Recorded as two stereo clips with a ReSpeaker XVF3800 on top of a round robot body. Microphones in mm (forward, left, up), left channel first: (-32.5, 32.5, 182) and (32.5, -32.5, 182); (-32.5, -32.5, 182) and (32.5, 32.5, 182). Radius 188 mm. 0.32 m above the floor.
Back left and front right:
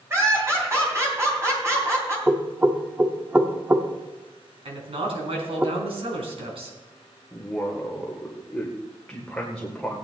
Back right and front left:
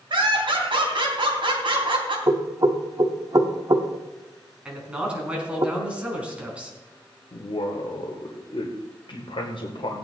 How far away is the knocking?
About 1.4 m.